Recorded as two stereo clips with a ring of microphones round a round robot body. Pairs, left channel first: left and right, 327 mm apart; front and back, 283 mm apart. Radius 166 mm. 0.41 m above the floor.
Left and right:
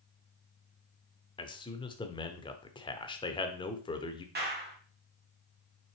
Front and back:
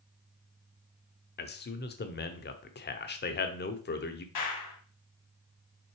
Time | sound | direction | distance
1.4 | a man speaking | 20° left | 1.0 m
4.3 | a clap | 30° right | 2.5 m